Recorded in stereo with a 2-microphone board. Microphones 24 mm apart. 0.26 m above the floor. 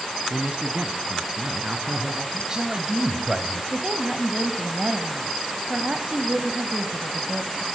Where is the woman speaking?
45° right (ahead or behind), 1.2 m.